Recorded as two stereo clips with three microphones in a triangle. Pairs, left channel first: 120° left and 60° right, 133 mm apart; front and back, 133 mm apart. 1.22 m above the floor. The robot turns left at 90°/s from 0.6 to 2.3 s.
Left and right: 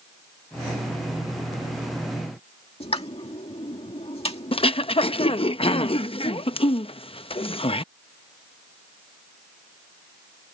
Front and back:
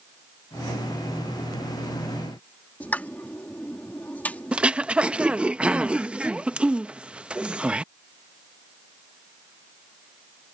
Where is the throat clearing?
100° left.